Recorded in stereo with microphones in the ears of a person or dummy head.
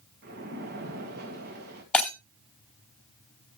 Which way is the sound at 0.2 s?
55° right (ahead or behind).